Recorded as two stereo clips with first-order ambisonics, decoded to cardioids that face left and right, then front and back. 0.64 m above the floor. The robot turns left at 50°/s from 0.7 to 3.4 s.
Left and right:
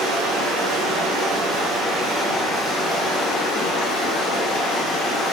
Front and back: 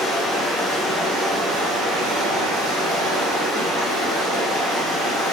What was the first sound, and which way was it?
Running water, 95° right.